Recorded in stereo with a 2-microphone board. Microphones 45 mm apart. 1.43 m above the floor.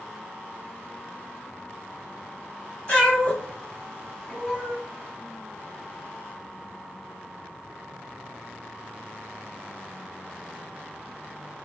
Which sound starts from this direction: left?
A cat meowing, at 2.9 s.